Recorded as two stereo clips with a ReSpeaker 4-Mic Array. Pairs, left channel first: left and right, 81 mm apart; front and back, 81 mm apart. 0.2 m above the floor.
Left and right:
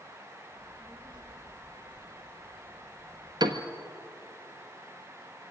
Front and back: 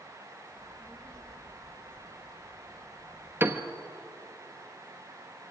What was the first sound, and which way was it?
A child speaking, 80° right.